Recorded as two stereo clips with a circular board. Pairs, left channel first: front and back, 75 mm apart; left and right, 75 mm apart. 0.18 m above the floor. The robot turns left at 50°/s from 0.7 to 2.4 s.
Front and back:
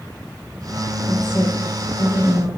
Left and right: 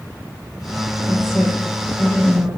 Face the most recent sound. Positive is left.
turn(degrees=-15)